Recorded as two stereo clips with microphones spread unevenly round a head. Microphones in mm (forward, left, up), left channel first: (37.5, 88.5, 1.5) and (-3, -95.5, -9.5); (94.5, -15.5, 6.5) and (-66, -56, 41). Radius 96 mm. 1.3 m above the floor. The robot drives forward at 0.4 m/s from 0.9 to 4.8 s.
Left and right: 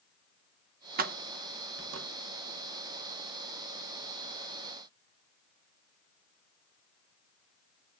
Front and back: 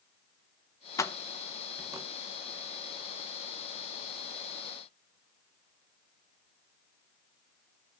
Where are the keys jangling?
65° right, 0.7 m; by 2.1 s 105° right, 0.6 m.